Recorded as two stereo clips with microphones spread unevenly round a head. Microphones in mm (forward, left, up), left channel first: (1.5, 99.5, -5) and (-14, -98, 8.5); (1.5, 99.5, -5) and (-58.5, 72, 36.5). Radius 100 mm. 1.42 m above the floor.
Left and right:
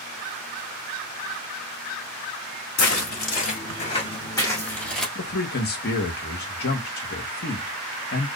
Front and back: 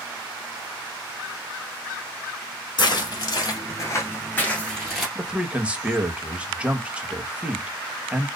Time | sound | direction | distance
2.8 | footsteps | 55° left | 2.0 m
5.2 | a man speaking | 125° left | 1.1 m